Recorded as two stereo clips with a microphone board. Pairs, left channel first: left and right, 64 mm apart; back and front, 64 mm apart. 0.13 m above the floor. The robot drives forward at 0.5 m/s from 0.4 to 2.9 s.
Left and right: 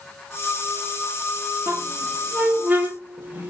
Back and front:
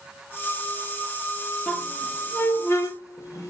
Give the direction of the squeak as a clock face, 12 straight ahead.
4 o'clock.